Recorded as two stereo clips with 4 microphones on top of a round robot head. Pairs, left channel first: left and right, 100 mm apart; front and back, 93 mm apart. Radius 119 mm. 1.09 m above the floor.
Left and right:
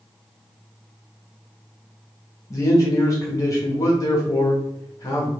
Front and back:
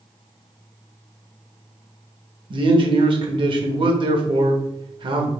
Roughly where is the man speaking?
Behind left.